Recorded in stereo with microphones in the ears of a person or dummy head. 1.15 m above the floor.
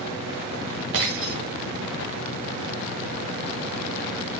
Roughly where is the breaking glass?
Right.